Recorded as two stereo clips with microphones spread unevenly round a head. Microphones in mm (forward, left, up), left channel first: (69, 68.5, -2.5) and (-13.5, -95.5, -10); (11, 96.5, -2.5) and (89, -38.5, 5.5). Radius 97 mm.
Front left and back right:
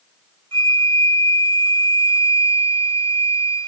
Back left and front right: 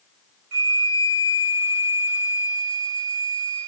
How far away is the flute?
About 2 m.